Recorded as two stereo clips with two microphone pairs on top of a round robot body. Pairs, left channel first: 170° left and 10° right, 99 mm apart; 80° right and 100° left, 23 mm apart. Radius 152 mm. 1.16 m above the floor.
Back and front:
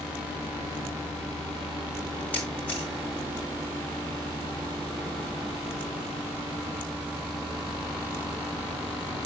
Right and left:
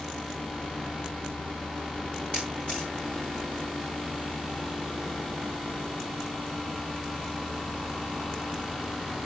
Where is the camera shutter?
100° right, 0.9 m.